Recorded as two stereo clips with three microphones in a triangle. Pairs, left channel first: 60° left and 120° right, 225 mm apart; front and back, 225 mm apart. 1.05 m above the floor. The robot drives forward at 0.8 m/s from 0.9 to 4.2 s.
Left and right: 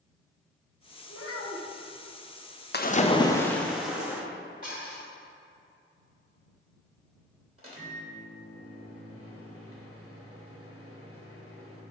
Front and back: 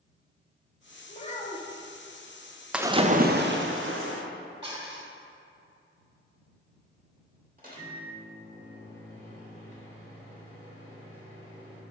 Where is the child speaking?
55° left, 1.6 m; by 1.8 s 80° left, 1.3 m.